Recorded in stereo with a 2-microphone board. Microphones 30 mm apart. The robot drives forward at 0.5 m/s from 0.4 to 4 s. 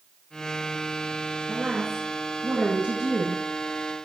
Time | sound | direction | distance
1.5 | a woman speaking | 30° right (ahead or behind) | 1.7 m